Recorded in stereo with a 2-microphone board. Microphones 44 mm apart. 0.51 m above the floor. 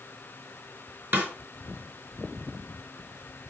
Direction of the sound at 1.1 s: 55° right (ahead or behind).